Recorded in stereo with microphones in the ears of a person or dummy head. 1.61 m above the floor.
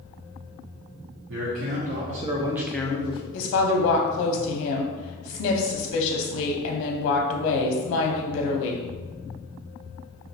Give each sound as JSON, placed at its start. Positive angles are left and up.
{"t": 1.3, "sound": "a man speaking", "side_deg": -65, "distance_m": 0.9}
{"t": 3.3, "sound": "a woman speaking", "side_deg": 65, "distance_m": 0.6}